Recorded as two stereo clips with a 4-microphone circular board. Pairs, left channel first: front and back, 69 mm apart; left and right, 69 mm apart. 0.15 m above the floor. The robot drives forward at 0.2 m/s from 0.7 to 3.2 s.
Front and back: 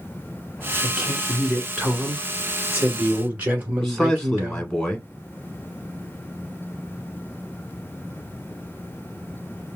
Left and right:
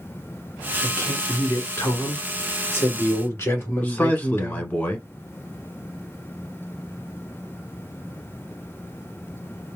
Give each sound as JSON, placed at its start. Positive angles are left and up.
{"t": 0.8, "sound": "a man speaking", "azimuth_deg": 105, "distance_m": 1.8}
{"t": 3.8, "sound": "a man speaking", "azimuth_deg": 75, "distance_m": 1.1}